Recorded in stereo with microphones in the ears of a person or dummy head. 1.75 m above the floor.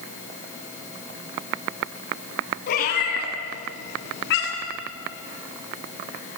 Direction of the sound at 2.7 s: 50° left (ahead or behind).